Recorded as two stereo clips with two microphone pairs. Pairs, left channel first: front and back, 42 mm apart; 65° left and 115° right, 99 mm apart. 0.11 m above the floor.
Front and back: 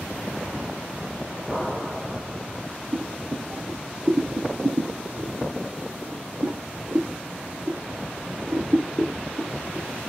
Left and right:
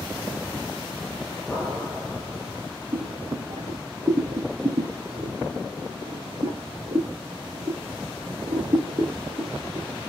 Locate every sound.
1.5 s an explosion: 125° left, 2.0 m
2.9 s boiling: 150° right, 3 m